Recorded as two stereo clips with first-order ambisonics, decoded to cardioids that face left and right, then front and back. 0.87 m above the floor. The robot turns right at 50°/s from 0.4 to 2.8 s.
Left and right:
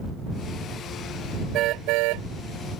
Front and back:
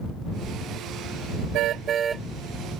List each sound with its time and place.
1.5 s a car horn: 140° right; by 2.3 s 100° right